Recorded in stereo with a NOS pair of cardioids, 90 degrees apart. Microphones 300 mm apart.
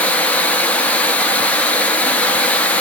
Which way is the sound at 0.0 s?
5° left.